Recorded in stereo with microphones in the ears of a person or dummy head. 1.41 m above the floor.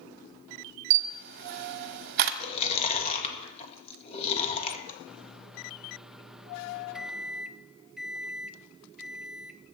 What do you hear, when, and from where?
0.9 s a camera shutter: 55° right (ahead or behind), 1.0 m
2.4 s chewing: 30° left (ahead or behind), 1.8 m
5.1 s a microwave: centre (ahead or behind), 0.5 m